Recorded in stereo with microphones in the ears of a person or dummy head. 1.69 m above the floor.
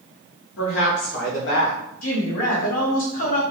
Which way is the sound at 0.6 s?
75° left (ahead or behind).